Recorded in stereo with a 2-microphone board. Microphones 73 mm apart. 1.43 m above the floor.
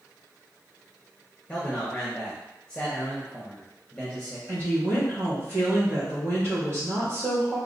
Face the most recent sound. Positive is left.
turn(degrees=-40)  # may be behind; listen again after turning